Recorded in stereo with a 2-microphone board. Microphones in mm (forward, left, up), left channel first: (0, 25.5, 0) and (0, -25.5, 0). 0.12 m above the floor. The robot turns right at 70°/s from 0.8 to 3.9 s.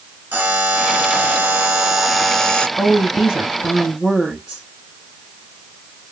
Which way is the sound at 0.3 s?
100° right.